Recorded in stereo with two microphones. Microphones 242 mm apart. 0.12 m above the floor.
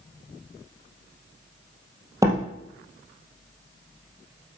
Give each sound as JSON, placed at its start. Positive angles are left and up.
{"t": 2.2, "sound": "a door slam", "side_deg": -15, "distance_m": 2.0}